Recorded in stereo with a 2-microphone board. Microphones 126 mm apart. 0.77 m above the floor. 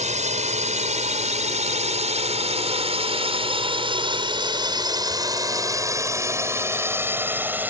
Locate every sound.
0.0 s a drone: 70° right (ahead or behind); by 7.7 s 15° right (ahead or behind)